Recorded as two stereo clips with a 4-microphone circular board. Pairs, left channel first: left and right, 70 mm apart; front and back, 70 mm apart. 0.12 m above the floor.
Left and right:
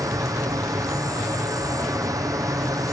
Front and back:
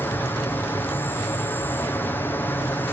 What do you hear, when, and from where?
0.0 s an insect: 60° right, 2.5 m